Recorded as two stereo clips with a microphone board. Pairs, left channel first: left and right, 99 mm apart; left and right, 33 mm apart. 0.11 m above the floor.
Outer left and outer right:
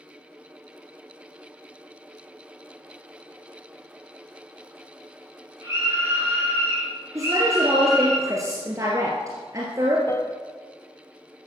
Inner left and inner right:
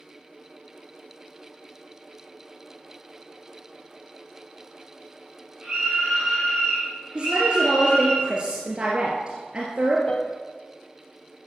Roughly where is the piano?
Left.